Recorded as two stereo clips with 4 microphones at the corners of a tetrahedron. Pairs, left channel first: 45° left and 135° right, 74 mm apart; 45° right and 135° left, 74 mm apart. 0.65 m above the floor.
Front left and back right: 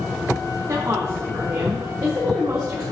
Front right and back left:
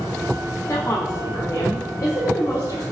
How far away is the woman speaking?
About 1.4 m.